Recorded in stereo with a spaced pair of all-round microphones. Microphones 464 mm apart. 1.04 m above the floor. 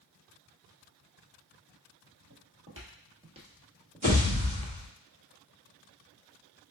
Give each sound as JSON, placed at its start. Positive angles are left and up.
{"t": 2.3, "sound": "footsteps", "side_deg": -35, "distance_m": 1.8}
{"t": 4.0, "sound": "a pop", "side_deg": -15, "distance_m": 2.0}